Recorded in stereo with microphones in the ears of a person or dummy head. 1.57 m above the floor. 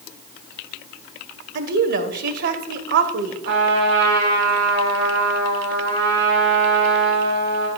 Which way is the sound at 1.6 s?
60° right (ahead or behind).